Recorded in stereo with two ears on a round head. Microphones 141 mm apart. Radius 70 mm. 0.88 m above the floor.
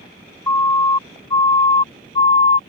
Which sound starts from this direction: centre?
A siren, at 0.5 s.